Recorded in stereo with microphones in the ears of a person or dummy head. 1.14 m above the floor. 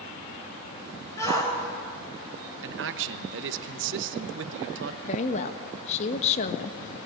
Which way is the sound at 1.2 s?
20° left (ahead or behind).